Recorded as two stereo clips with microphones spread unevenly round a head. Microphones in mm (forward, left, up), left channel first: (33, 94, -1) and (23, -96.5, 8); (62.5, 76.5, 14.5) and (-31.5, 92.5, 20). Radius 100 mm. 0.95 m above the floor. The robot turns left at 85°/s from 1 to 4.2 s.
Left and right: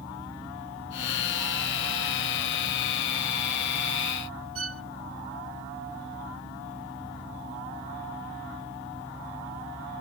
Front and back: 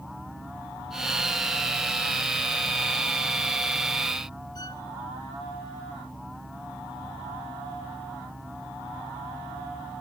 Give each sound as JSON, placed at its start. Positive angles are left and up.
{"t": 4.5, "sound": "a violin", "azimuth_deg": -75}